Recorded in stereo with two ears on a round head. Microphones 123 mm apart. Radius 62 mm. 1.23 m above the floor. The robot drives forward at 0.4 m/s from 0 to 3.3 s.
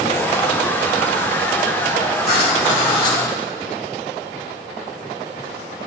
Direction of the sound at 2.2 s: 45° left (ahead or behind).